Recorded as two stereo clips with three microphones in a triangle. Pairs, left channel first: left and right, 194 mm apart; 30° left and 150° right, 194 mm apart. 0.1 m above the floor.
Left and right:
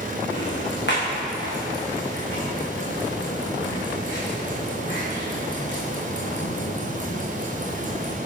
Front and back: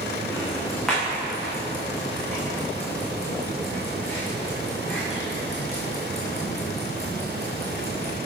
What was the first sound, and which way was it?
Ticking, 120° left.